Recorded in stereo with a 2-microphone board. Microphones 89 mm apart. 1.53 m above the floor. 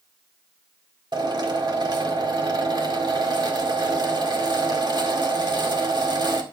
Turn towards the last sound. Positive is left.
turn(degrees=-55)  # may be behind; listen again after turning